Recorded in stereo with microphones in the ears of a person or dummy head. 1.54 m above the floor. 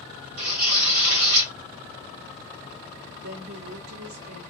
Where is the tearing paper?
65° right (ahead or behind), 2.5 m.